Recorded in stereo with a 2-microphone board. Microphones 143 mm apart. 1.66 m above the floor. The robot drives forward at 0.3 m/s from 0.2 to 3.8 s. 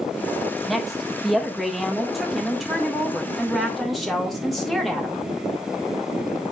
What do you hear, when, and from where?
0.7 s a woman speaking: centre (ahead or behind), 2.0 m